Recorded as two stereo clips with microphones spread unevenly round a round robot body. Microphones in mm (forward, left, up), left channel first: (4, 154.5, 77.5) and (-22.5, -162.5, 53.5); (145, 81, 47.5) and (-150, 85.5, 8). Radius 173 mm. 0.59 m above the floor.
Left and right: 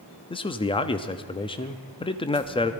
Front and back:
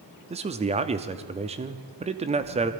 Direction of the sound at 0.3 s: 155° left.